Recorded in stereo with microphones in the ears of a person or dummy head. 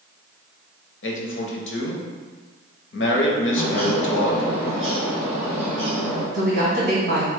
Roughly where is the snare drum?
No snare drum in this recording.